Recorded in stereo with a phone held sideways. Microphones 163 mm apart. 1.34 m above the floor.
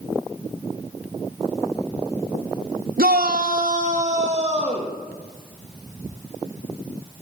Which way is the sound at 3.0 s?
70° right (ahead or behind).